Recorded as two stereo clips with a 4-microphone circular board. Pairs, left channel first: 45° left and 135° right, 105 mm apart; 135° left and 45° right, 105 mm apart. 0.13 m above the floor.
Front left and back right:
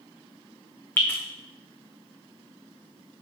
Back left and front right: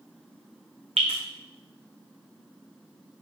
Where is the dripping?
25° right, 1.7 m.